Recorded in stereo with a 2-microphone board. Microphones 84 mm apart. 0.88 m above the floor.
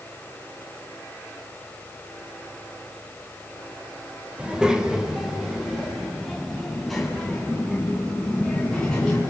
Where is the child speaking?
10° right (ahead or behind), 2 m; by 9.2 s 5° left (ahead or behind), 6.5 m.